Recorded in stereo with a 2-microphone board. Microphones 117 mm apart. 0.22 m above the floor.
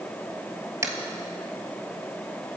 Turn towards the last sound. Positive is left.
turn(degrees=-25)  # may be behind; listen again after turning